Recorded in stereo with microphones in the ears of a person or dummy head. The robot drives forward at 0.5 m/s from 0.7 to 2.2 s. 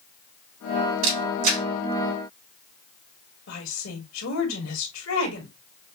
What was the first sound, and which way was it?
A camera shutter, 80° right.